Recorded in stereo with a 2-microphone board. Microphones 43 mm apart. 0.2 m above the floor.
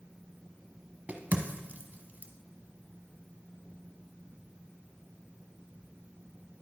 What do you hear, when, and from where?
1.1 s a crack: 40° right (ahead or behind), 0.7 m